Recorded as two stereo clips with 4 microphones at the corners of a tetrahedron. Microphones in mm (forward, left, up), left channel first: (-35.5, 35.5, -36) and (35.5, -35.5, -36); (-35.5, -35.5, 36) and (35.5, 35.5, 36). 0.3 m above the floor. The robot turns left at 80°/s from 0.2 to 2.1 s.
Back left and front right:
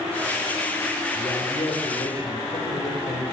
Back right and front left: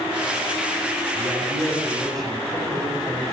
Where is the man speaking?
Straight behind, 4 m; by 3.3 s 105° left, 4 m.